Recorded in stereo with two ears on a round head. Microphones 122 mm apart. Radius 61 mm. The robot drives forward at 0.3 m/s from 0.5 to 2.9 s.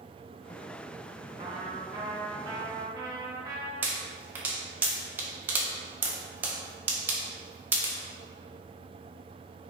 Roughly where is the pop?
Centre.